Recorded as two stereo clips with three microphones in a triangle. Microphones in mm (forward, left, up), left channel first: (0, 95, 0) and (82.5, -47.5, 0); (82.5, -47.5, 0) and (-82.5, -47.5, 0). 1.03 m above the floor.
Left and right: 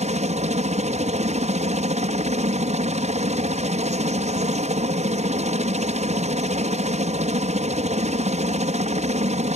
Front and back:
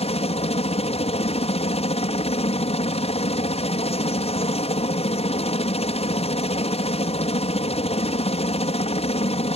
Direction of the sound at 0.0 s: 35° right.